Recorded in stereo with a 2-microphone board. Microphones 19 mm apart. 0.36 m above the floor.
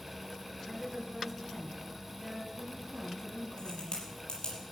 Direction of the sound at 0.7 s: 5° right (ahead or behind).